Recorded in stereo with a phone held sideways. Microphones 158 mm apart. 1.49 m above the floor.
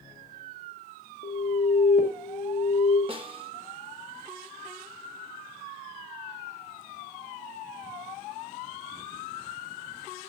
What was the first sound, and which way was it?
An alarm, 70° left (ahead or behind).